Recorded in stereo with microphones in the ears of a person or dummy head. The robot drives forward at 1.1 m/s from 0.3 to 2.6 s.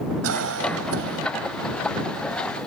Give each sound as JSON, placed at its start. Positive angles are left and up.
{"t": 0.2, "sound": "a cough", "side_deg": -85}